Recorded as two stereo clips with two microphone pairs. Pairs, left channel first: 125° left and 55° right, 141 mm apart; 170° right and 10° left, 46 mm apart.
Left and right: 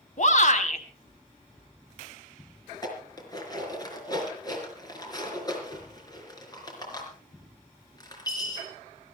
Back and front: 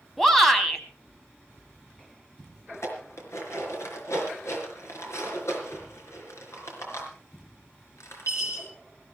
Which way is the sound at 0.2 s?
105° left.